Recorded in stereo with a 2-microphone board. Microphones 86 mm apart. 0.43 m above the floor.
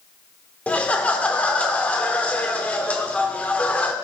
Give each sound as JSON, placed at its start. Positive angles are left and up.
{"t": 0.7, "sound": "laughter", "side_deg": 15, "distance_m": 0.7}